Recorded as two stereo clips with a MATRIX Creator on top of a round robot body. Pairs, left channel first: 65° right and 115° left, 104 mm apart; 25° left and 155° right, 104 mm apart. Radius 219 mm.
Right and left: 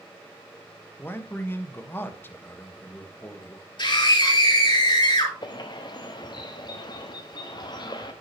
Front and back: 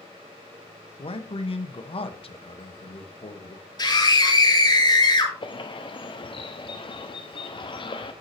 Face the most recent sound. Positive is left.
turn(degrees=-20)